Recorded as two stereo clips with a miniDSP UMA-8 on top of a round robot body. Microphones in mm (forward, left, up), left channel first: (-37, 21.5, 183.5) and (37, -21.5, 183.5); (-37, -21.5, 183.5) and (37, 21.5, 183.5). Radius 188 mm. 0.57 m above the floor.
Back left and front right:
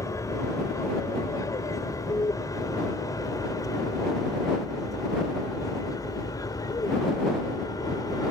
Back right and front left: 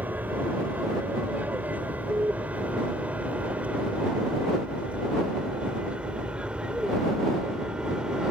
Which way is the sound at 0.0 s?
100° left.